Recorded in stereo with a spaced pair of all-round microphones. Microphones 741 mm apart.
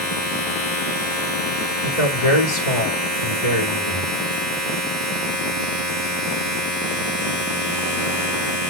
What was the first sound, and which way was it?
A machine running, 70° left (ahead or behind).